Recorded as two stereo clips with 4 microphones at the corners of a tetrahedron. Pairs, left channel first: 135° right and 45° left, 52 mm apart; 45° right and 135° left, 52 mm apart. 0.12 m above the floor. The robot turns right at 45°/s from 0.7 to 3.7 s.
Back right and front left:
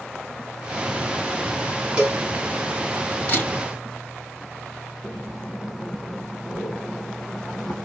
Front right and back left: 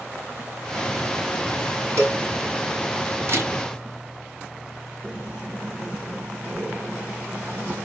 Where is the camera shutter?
165° left, 3 m; by 3.5 s 175° left, 3 m.